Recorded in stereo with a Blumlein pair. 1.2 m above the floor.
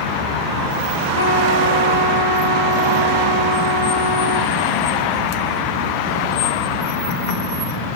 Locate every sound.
1.1 s a trumpet: 70° left, 3.5 m